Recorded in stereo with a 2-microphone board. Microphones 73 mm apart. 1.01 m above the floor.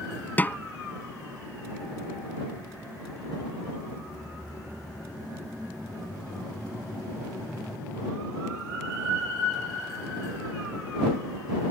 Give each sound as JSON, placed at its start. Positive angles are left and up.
{"t": 0.4, "sound": "a snare drum", "side_deg": 25}